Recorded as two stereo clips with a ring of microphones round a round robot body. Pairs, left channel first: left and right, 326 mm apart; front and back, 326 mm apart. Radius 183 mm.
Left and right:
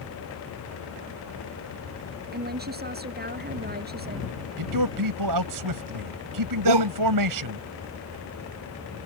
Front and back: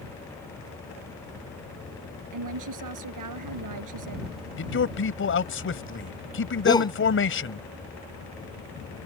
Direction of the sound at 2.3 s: 150° right.